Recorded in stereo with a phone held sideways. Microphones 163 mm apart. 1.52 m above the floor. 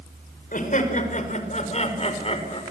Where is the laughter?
55° left (ahead or behind), 5.5 m; by 2.6 s 35° left (ahead or behind), 5 m.